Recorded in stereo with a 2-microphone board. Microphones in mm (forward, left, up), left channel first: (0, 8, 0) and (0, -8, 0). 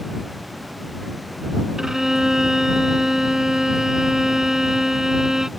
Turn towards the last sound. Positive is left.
turn(degrees=-35)  # may be behind; listen again after turning